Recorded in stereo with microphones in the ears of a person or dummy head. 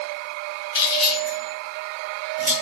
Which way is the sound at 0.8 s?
20° left (ahead or behind).